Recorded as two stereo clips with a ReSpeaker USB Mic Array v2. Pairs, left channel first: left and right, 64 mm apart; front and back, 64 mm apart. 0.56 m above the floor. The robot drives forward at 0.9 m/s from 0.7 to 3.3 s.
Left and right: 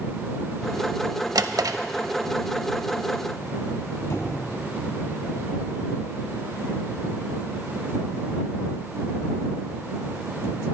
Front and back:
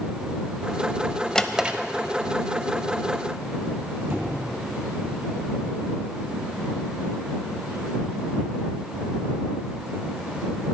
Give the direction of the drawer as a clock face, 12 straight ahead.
3 o'clock.